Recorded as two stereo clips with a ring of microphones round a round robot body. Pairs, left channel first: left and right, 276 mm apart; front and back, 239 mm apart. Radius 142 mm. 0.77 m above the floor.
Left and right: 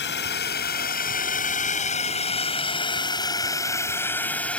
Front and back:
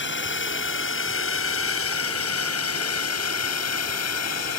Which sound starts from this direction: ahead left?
A drone, at 0.0 s.